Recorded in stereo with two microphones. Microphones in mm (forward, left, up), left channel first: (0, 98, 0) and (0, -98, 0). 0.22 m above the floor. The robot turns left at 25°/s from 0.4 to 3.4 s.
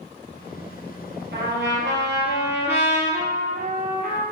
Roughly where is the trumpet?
Right.